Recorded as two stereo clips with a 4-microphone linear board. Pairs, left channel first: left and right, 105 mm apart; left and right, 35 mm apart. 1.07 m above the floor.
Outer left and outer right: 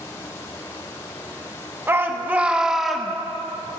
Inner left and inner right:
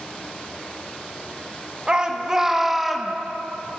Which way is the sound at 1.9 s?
25° right (ahead or behind).